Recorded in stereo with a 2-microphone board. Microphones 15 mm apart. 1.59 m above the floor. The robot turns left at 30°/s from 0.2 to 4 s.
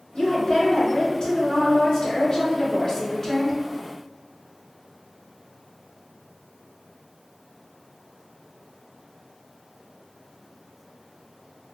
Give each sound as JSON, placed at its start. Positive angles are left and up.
{"t": 0.1, "sound": "a woman speaking", "azimuth_deg": 115, "distance_m": 1.7}